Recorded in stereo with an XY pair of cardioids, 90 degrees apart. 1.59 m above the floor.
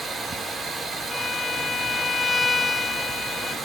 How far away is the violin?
About 0.6 m.